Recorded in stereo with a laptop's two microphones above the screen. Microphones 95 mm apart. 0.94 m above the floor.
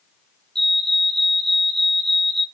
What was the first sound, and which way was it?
A fire alarm, 5° left (ahead or behind).